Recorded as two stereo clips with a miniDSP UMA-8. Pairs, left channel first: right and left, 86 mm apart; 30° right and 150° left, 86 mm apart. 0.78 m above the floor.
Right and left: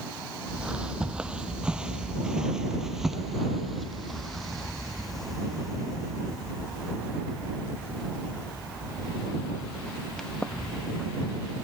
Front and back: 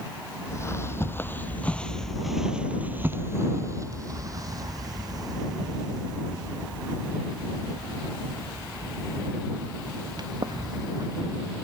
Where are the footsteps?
15° left; by 11.6 s 175° right.